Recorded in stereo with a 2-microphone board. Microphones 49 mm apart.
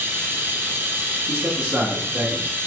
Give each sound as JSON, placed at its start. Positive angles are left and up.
{"t": 0.0, "sound": "running water", "side_deg": -45, "distance_m": 0.9}
{"t": 1.3, "sound": "a man speaking", "side_deg": -40, "distance_m": 1.7}